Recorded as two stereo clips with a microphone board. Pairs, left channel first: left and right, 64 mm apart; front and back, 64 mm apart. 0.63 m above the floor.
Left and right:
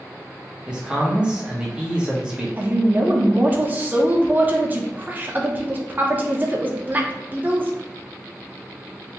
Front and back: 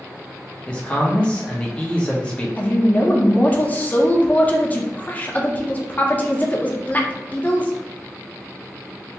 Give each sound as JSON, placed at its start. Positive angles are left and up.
{"t": 0.7, "sound": "a man speaking", "azimuth_deg": -40, "distance_m": 1.0}
{"t": 2.6, "sound": "a woman speaking", "azimuth_deg": -45, "distance_m": 0.7}